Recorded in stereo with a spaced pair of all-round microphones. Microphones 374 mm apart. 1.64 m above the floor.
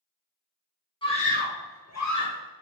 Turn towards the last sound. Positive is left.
turn(degrees=65)  # may be behind; listen again after turning